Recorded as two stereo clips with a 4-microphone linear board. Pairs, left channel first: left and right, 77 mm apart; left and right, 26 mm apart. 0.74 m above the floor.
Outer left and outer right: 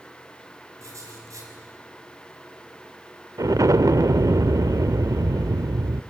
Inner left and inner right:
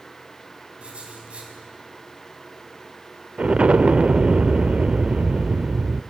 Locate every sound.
0.8 s writing: 45° right (ahead or behind), 5 m
3.4 s an explosion: 50° right (ahead or behind), 0.5 m